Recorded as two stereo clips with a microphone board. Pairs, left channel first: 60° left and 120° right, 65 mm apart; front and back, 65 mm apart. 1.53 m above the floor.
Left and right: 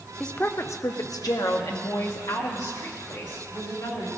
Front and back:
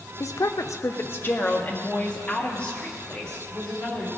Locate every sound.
0.2 s a woman speaking: 20° right, 0.6 m; by 4.1 s 75° left, 3.5 m